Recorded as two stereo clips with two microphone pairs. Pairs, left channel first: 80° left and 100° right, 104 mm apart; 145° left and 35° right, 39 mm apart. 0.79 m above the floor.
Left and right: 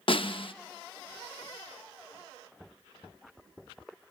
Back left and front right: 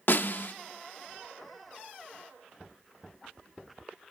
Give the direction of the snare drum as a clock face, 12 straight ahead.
8 o'clock.